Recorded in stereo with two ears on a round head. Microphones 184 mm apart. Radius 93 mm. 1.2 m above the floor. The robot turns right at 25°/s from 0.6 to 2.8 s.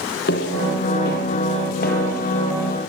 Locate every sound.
0.3 s footsteps: 55° left (ahead or behind), 2.5 m; by 2.8 s 45° left (ahead or behind), 2 m